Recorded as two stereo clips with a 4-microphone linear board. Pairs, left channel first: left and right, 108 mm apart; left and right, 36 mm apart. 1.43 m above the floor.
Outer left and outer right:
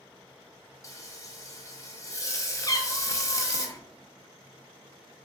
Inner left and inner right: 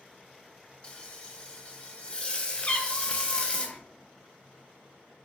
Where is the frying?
30° left (ahead or behind), 0.7 m.